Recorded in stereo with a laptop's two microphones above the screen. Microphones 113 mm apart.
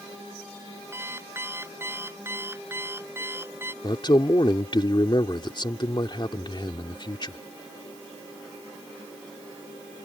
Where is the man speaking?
45° left (ahead or behind).